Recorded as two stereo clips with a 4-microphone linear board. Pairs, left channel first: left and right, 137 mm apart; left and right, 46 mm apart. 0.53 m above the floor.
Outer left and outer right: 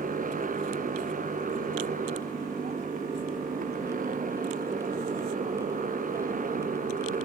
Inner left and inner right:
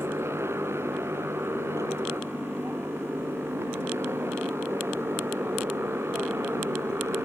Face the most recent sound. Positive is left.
turn(degrees=-85)